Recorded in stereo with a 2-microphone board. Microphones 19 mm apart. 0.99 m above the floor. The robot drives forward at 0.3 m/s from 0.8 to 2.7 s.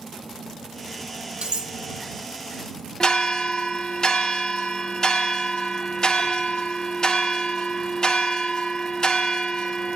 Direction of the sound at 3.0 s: 45° left (ahead or behind).